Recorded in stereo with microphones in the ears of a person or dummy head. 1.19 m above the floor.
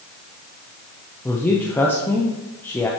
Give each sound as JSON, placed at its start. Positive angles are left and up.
{"t": 1.2, "sound": "a man speaking", "side_deg": 10, "distance_m": 0.8}